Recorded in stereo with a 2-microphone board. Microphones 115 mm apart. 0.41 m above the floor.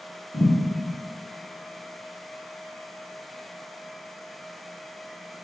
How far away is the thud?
About 0.8 m.